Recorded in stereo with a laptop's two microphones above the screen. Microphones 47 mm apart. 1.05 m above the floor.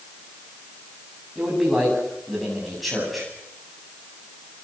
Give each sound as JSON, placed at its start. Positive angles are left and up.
{"t": 1.4, "sound": "a man speaking", "side_deg": 0, "distance_m": 8.5}